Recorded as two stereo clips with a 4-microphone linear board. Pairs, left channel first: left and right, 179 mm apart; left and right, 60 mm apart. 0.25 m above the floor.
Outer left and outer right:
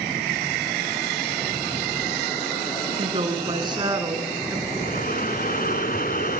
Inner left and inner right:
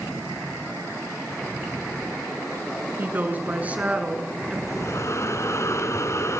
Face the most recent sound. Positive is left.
turn(degrees=55)  # may be behind; listen again after turning